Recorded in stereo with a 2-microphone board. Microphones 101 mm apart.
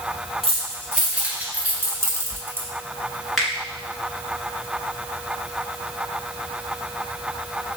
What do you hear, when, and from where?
0.4 s keys jangling: 5° right (ahead or behind), 2.5 m; by 2.7 s 20° right (ahead or behind), 1.2 m
3.4 s a finger snap: centre (ahead or behind), 1.9 m